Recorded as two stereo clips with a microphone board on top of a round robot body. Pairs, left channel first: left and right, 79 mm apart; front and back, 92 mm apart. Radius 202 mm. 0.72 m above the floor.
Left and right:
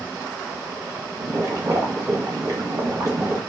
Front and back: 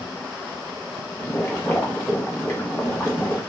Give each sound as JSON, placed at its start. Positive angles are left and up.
{"t": 1.2, "sound": "boiling", "azimuth_deg": -55, "distance_m": 1.3}